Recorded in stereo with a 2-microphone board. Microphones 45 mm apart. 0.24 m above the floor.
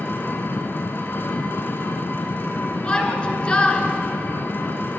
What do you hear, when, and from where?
0.0 s an engine running: 50° left (ahead or behind), 1.3 m
2.8 s a shout: 20° left (ahead or behind), 2.5 m